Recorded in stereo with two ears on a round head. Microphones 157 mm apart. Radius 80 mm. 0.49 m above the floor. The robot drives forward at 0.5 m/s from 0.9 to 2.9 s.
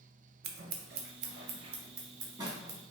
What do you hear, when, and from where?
0.4 s scissors: 60° right (ahead or behind), 0.5 m; by 2.8 s 20° right (ahead or behind), 1.3 m